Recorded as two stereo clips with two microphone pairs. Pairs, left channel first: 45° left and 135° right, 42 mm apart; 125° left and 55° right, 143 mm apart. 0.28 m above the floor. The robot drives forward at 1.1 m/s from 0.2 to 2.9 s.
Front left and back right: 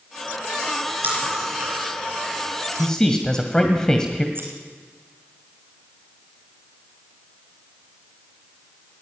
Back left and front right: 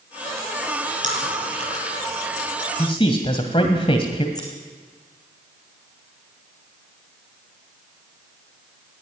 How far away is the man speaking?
About 1.7 m.